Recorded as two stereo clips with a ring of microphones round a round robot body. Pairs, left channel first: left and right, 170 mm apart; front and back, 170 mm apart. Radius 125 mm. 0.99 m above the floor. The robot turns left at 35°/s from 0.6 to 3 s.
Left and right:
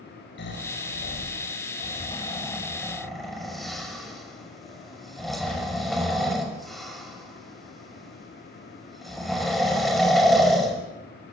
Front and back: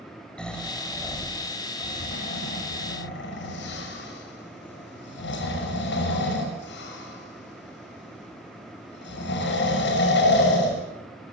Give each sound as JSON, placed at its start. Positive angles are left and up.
{"t": 0.4, "sound": "snoring", "azimuth_deg": 85, "distance_m": 5.5}